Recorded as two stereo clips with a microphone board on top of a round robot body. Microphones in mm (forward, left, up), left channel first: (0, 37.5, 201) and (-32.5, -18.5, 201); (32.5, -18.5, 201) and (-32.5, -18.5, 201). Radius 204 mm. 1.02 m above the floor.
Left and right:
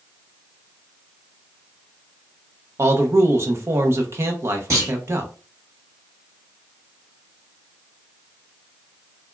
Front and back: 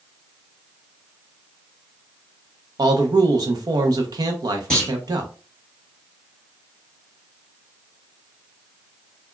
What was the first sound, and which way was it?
A man speaking, 165° right.